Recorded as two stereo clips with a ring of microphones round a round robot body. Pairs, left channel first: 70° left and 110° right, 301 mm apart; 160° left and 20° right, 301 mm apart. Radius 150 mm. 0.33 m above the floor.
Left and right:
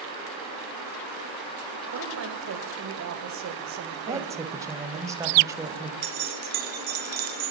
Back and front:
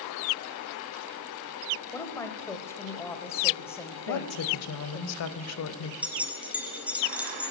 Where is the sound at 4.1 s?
170° left, 1.2 m.